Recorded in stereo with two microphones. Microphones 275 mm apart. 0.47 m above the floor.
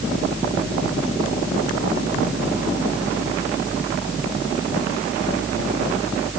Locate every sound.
Only background noise.